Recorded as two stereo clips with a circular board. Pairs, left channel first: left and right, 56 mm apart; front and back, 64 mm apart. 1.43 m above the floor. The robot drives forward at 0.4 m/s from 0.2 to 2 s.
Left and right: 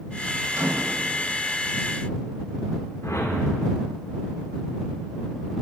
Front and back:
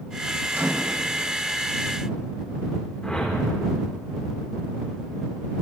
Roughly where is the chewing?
No chewing in this recording.